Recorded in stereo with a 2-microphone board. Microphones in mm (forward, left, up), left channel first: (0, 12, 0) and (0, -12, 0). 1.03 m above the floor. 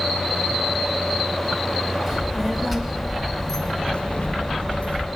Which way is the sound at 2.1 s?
20° right (ahead or behind).